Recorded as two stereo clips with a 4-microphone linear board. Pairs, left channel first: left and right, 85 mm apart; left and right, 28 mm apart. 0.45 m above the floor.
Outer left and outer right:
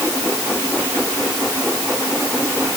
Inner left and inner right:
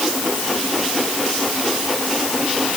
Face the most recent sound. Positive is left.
No sound to turn to.